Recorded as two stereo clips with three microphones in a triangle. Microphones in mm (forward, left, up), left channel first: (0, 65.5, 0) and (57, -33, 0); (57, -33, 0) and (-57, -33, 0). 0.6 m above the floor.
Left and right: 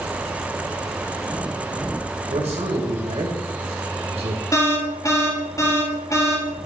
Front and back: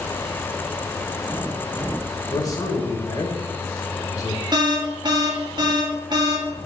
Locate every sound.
2.3 s a man speaking: 55° right, 2.5 m
4.5 s an alarm: 165° left, 2 m